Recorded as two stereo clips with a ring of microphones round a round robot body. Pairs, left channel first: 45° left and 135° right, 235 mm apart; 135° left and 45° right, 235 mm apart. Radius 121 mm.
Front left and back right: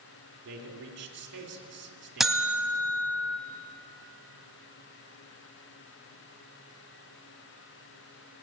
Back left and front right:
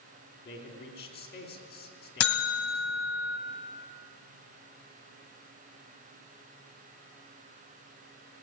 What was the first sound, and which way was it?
A man speaking, 175° right.